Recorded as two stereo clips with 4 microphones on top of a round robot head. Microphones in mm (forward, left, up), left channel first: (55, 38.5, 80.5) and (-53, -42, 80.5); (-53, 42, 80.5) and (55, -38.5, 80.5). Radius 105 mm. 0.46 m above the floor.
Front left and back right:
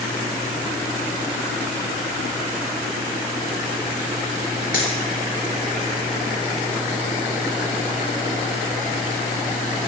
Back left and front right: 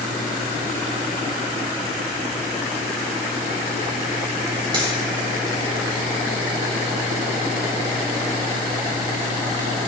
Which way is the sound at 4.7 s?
20° left.